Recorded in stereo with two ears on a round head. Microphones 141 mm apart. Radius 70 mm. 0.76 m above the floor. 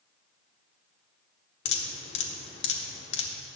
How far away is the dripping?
About 1.3 m.